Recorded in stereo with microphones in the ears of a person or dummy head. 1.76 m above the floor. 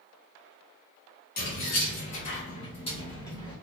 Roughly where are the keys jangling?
Left.